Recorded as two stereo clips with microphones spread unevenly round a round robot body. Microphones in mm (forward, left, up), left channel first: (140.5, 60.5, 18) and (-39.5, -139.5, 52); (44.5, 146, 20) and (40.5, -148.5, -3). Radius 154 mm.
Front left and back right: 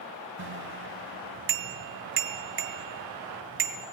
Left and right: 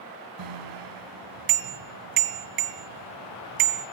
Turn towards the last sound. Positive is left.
turn(degrees=-85)